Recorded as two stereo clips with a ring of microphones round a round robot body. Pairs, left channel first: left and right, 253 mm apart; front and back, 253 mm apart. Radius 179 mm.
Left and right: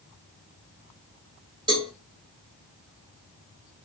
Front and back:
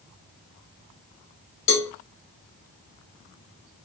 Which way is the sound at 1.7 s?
15° right.